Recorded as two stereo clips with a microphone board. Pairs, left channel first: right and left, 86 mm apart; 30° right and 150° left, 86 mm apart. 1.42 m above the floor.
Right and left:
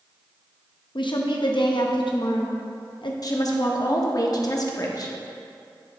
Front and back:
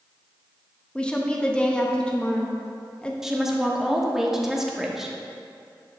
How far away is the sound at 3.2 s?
About 0.9 m.